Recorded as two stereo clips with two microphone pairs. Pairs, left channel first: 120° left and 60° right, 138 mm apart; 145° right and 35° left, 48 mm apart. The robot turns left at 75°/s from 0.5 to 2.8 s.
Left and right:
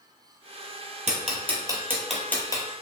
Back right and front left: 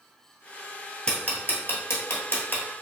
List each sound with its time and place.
1.1 s ticking: 75° right, 0.9 m; by 2.6 s 170° left, 0.9 m